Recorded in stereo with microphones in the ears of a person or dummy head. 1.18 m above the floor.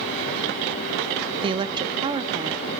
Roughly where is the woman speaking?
Right.